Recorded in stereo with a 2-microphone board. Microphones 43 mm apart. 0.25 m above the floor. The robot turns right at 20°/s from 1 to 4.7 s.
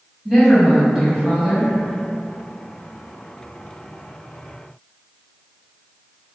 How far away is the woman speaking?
About 1.3 m.